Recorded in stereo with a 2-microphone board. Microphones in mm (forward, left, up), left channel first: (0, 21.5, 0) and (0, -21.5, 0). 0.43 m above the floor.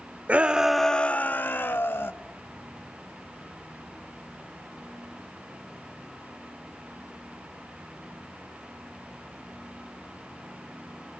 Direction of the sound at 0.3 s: 35° right (ahead or behind).